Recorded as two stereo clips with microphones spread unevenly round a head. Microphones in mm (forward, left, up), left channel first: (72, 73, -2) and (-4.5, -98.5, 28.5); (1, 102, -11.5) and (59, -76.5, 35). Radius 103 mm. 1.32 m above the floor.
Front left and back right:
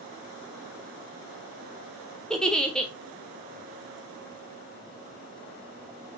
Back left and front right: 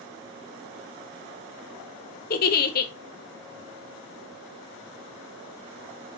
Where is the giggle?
160° left, 0.6 m.